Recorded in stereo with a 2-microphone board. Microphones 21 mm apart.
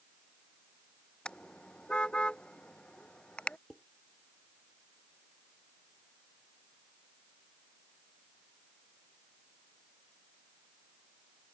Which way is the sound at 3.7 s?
5° left (ahead or behind).